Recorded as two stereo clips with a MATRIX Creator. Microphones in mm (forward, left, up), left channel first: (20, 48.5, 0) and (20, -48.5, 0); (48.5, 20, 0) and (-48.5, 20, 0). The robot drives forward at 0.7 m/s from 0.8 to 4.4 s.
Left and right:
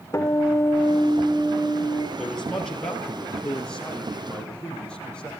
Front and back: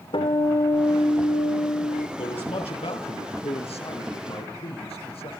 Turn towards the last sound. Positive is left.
turn(degrees=10)